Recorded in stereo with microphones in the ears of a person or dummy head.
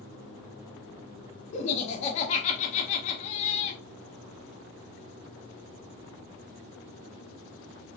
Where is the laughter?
35° left (ahead or behind), 1.2 m.